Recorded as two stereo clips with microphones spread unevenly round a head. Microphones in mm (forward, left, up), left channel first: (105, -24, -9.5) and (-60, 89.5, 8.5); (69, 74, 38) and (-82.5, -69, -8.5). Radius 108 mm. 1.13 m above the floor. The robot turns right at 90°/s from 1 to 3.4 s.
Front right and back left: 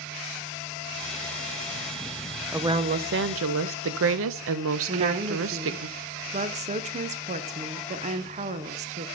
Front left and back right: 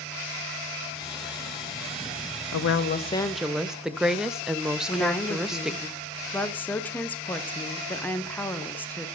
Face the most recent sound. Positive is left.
turn(degrees=140)